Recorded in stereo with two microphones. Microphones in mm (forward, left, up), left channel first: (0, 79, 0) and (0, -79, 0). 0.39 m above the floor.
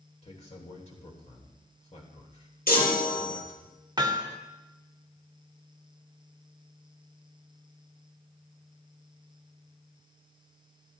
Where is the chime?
70° left (ahead or behind), 2.5 m.